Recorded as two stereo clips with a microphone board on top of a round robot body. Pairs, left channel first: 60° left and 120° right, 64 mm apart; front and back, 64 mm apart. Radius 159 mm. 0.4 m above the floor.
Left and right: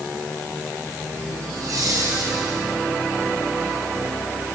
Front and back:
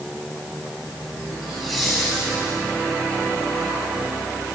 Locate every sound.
1.4 s laughter: 90° right, 5 m; by 2.6 s 85° right, 5.5 m